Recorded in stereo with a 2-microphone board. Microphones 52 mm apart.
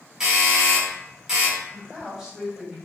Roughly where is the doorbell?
Centre.